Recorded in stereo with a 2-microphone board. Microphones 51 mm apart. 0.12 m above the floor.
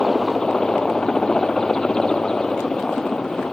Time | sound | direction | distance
0.0 | a helicopter | 15° left (ahead or behind) | ?